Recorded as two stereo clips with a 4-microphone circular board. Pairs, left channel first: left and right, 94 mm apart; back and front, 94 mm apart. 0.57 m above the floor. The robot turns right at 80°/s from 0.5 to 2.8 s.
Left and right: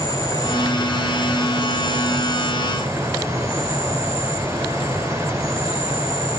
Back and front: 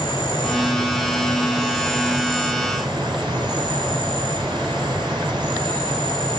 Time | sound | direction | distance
0.0 | an insect | 135° left | 8 m